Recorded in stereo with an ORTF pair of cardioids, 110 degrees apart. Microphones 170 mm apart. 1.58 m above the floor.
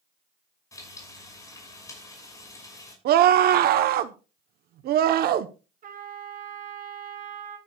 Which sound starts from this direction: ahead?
Frying, at 0.7 s.